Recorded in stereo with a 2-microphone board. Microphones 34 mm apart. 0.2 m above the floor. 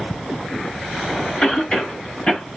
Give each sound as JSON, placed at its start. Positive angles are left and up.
{"t": 1.4, "sound": "a cough", "side_deg": 35, "distance_m": 1.2}